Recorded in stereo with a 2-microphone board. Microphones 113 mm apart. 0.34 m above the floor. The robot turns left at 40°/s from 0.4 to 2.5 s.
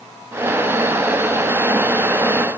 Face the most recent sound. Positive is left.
No sound to turn to.